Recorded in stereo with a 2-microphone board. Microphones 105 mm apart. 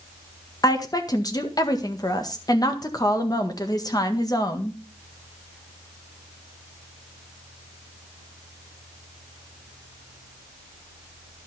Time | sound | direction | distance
0.6 | a woman speaking | 40° left (ahead or behind) | 1.6 m